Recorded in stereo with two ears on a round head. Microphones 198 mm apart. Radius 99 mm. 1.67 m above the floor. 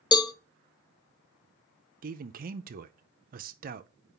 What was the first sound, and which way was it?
A cowbell, 20° left (ahead or behind).